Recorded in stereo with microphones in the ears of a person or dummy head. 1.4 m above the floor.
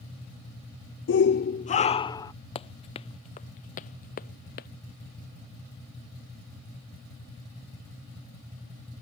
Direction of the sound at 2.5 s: 30° left (ahead or behind).